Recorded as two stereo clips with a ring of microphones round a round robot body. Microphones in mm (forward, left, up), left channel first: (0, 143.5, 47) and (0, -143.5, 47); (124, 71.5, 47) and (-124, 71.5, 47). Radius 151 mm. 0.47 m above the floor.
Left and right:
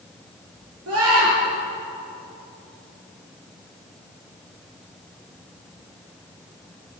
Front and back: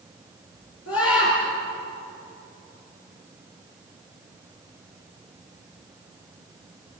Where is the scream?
45° right, 8 m.